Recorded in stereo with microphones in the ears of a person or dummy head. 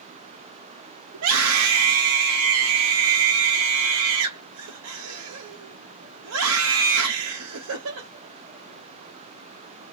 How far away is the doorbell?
I don't hear a doorbell.